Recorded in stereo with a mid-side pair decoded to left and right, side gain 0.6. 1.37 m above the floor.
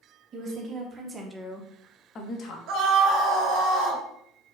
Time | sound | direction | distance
0.3 | a woman speaking | 45° right | 1.7 m
2.7 | a scream | 70° right | 2.0 m